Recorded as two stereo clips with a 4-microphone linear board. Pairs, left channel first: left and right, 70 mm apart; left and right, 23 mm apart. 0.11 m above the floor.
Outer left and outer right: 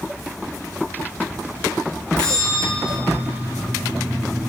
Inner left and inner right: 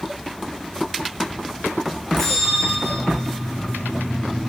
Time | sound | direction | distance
2.2 | a bell | 10° left (ahead or behind) | 8.5 m